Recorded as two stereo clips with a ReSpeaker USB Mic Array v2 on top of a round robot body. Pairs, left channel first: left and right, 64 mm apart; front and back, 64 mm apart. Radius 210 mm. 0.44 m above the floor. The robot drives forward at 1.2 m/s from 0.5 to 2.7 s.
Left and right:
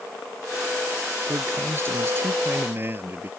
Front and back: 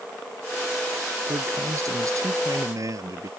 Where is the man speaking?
140° right; by 3.3 s 145° right.